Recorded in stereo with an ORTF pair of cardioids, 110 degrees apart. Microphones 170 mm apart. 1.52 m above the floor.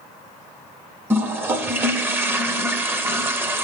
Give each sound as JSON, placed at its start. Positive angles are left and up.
{"t": 1.1, "sound": "a toilet flushing", "azimuth_deg": -15, "distance_m": 0.7}